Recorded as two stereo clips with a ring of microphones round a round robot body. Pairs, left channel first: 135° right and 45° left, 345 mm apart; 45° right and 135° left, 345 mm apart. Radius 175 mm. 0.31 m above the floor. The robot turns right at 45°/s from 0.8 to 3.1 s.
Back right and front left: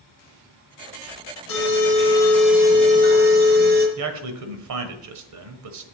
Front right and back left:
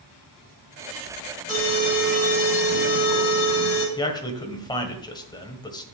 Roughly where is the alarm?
Right.